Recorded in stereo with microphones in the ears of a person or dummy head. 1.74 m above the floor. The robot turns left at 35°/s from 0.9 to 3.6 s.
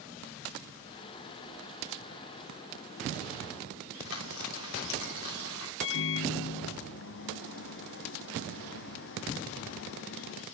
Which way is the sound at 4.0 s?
70° left (ahead or behind).